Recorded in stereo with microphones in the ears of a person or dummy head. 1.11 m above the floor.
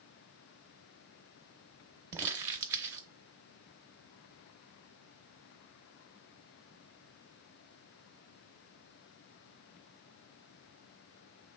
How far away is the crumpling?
About 0.7 m.